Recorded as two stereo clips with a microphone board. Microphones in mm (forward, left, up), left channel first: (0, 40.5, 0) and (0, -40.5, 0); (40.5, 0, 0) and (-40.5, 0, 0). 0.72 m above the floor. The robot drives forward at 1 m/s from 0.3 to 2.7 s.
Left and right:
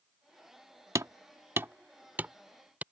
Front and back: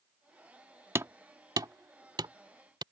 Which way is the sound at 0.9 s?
130° right.